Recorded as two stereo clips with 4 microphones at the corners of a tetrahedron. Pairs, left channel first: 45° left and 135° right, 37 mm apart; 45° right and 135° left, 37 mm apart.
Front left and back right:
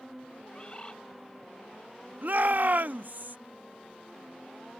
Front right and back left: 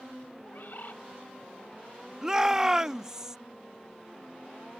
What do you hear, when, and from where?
0.5 s a bird: 15° right
2.2 s a shout: 155° right